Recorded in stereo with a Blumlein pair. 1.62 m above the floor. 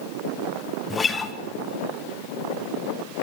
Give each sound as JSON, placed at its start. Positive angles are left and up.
{"t": 0.9, "sound": "a guitar", "azimuth_deg": 15, "distance_m": 1.6}